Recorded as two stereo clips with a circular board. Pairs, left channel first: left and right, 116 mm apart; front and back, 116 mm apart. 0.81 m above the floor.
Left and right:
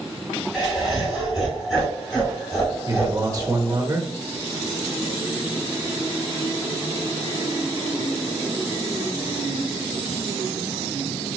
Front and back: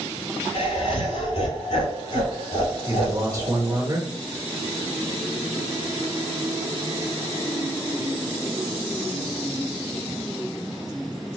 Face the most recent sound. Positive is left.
turn(degrees=-130)